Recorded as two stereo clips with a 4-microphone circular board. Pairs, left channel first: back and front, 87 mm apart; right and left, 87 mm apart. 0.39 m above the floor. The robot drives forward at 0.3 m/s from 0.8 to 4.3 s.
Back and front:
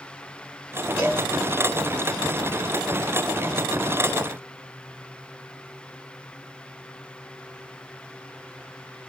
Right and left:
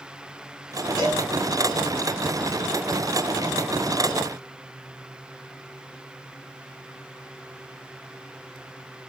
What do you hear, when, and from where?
1.0 s a cowbell: 95° right, 1.8 m; by 1.2 s 100° right, 1.8 m